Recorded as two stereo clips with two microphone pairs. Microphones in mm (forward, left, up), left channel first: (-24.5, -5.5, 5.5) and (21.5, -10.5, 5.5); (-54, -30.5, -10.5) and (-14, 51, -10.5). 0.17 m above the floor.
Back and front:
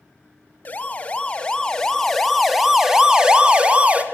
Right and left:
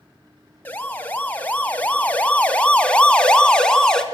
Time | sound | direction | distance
0.7 | a siren | 175° right | 2.5 m